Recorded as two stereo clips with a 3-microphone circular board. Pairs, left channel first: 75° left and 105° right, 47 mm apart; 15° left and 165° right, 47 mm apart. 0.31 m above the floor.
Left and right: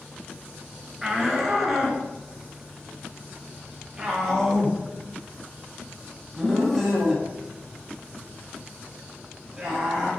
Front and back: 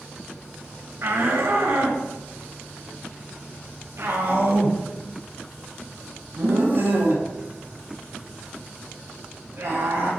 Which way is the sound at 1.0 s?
175° left.